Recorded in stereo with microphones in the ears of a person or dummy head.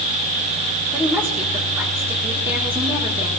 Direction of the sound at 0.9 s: 10° right (ahead or behind).